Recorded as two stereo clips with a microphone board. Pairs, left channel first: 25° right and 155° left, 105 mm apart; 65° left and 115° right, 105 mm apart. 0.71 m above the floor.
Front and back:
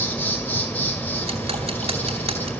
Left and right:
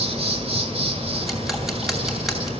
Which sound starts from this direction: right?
An insect, at 0.0 s.